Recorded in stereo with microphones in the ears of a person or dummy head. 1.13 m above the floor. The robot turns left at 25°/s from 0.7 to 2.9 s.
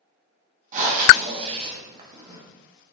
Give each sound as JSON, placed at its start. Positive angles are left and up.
{"t": 0.7, "sound": "breathing", "azimuth_deg": -120, "distance_m": 0.6}